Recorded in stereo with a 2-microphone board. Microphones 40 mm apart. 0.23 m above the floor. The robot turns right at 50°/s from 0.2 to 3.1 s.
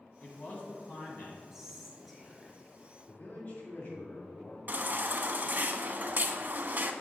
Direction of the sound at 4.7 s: 45° right (ahead or behind).